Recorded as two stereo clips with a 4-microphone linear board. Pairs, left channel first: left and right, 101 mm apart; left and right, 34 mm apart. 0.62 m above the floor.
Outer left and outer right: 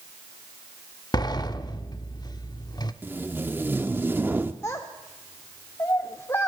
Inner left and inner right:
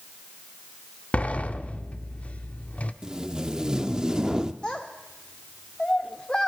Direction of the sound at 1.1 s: 40° left (ahead or behind).